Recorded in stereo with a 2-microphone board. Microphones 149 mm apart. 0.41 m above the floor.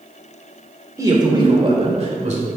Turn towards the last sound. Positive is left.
turn(degrees=-55)  # may be behind; listen again after turning